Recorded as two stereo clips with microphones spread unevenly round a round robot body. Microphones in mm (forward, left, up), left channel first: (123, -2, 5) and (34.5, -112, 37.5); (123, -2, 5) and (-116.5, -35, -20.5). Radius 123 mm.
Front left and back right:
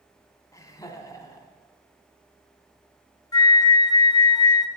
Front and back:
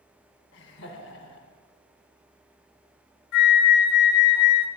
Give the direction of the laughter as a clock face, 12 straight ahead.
11 o'clock.